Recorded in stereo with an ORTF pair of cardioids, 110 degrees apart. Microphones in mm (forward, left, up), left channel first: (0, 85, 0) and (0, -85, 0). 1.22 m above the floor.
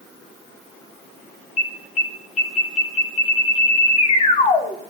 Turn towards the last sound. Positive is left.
turn(degrees=40)